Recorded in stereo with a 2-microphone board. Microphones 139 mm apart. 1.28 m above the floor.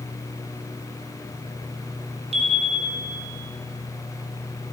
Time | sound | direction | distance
2.3 | a chime | 50° right (ahead or behind) | 4 m